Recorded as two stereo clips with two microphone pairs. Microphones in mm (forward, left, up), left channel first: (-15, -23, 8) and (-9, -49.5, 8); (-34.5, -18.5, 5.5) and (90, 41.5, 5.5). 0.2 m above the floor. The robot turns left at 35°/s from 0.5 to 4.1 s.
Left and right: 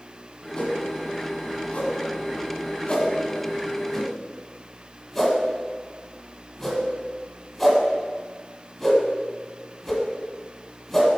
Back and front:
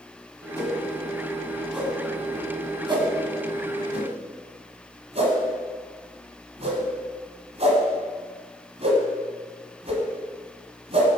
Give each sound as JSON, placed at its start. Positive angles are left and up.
{"t": 0.6, "sound": "a whoosh", "azimuth_deg": 145, "distance_m": 1.4}